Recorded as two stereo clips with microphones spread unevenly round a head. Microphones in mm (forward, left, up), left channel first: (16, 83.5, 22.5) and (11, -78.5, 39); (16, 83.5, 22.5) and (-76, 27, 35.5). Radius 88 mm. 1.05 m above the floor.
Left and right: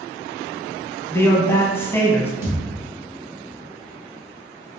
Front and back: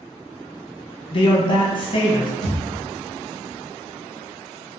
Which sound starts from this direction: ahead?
A man speaking, at 1.1 s.